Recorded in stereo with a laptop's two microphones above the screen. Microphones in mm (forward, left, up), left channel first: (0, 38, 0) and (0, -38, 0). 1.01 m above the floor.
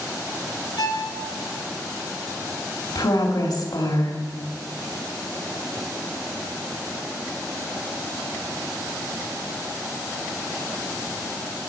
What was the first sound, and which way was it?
A violin, 70° left (ahead or behind).